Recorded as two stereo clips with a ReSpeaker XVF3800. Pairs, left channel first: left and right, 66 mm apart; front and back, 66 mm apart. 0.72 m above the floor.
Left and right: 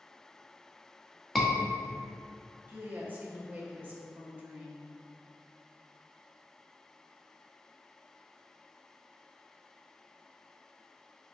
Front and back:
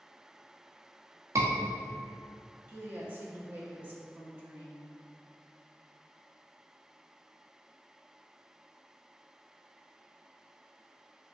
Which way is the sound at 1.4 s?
Straight behind.